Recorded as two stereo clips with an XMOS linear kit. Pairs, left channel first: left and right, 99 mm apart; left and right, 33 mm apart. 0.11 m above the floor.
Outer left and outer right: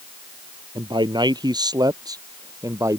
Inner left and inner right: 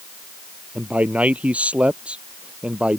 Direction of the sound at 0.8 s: 50° right (ahead or behind).